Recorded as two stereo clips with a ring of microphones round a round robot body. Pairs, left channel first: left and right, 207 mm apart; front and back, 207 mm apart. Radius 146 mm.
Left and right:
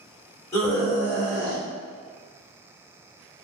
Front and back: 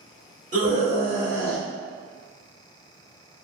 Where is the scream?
160° left, 1.5 m; by 1.6 s 100° right, 1.4 m.